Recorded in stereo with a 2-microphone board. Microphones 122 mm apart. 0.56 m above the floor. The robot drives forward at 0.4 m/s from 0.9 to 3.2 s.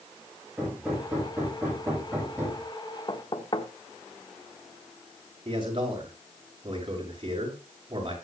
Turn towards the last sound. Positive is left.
turn(degrees=-40)  # may be behind; listen again after turning